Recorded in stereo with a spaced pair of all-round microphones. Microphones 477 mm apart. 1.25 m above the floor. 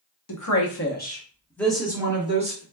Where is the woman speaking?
45° left (ahead or behind), 0.9 m; by 2.6 s 15° right (ahead or behind), 1.5 m.